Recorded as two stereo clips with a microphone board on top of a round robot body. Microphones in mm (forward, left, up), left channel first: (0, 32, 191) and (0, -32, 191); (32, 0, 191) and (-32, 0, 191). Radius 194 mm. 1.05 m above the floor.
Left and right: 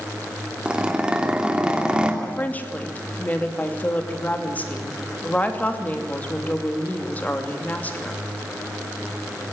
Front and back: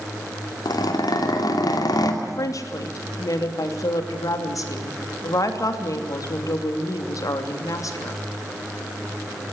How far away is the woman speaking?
About 3 m.